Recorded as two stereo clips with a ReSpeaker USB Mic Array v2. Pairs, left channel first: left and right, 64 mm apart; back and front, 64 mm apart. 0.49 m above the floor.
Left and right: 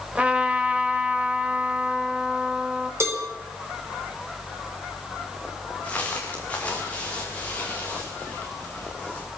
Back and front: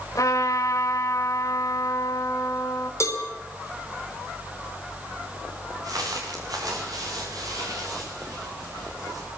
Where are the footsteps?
20° left, 7 m; by 9.3 s 25° left, 9 m.